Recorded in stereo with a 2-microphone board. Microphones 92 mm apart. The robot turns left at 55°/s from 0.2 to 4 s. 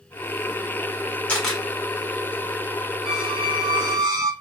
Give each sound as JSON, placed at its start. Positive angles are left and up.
{"t": 1.3, "sound": "a camera shutter", "side_deg": 15, "distance_m": 1.7}
{"t": 3.0, "sound": "a squeak", "azimuth_deg": -80, "distance_m": 1.7}